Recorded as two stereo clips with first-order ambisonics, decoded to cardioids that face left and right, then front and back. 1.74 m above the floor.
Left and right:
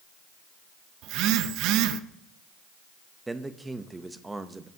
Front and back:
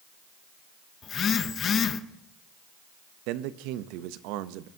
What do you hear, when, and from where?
1.0 s a phone buzzing: 60° right, 0.5 m
3.3 s a man speaking: 170° right, 0.6 m